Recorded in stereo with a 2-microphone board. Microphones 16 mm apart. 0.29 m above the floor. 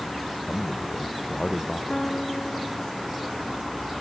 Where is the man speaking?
55° left (ahead or behind).